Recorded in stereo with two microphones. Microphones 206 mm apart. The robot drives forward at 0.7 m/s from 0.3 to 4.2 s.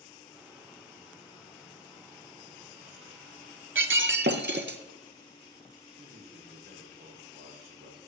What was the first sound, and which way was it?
Breaking glass, 70° right (ahead or behind).